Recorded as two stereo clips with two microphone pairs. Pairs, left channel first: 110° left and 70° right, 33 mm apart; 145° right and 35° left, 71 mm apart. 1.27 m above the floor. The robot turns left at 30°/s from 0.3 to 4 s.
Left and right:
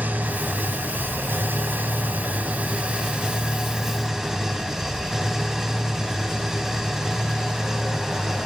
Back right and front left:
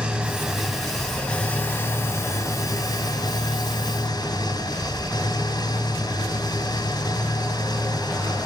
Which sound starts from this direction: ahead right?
An engine running, at 0.0 s.